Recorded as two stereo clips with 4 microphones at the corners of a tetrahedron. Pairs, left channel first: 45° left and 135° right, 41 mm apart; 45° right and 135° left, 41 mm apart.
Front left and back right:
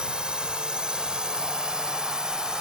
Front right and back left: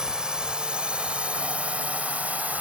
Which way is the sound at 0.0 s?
170° right.